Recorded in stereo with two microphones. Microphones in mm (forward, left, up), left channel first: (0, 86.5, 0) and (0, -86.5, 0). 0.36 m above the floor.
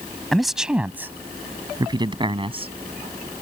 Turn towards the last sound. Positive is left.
turn(degrees=-35)  # may be behind; listen again after turning